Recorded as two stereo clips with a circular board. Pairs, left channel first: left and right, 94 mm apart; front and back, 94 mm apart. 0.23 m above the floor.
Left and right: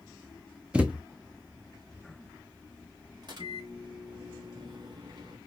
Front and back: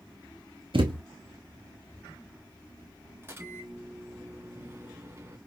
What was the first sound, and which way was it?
A thud, 165° right.